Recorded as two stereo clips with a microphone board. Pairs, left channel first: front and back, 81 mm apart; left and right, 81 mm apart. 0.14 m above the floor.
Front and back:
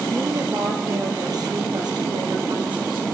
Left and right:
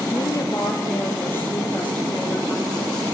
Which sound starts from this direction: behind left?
A woman speaking, at 0.1 s.